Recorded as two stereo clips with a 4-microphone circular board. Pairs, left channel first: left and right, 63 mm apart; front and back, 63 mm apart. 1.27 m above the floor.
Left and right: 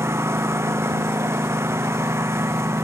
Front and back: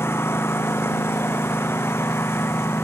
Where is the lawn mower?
45° right.